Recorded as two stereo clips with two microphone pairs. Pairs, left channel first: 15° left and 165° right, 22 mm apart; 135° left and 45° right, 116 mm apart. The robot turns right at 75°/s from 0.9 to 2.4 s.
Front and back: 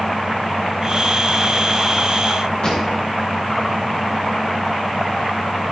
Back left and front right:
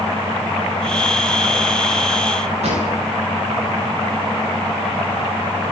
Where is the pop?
30° right, 8 m.